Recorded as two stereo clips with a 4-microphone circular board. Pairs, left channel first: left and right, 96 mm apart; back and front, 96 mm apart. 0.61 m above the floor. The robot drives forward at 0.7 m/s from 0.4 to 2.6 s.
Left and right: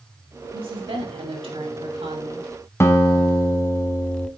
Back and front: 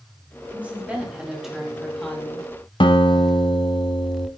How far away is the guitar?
About 1.2 m.